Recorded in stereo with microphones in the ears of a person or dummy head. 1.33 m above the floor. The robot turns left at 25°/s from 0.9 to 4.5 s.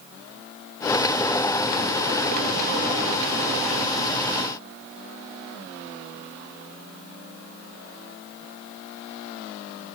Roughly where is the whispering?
I don't hear whispering.